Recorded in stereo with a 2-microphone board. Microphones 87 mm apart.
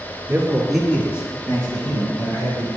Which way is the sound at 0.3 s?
25° right (ahead or behind).